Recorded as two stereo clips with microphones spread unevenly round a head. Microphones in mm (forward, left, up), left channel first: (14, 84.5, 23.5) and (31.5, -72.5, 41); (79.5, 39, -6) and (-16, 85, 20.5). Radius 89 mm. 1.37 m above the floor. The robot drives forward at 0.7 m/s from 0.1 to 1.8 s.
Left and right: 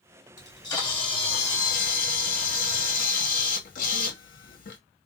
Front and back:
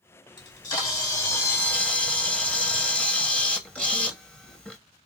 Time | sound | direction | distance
0.4 | a camera shutter | 25° left | 1.6 m